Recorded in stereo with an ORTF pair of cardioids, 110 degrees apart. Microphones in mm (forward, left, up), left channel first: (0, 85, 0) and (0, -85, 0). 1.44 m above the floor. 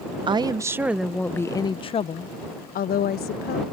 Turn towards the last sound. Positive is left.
turn(degrees=70)